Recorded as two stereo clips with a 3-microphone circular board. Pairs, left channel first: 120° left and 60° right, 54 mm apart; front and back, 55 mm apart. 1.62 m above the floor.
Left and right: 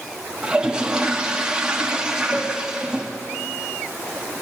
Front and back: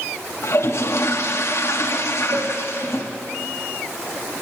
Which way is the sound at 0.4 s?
10° left.